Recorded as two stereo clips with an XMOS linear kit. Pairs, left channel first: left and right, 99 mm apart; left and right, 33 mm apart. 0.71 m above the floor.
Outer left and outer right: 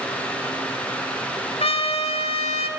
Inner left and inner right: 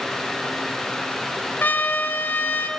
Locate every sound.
1.6 s a trumpet: 75° left (ahead or behind), 1.6 m